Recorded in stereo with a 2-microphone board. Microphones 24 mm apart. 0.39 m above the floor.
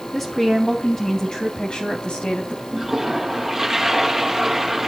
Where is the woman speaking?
15° left (ahead or behind), 3 m; by 2.6 s 50° left (ahead or behind), 3 m.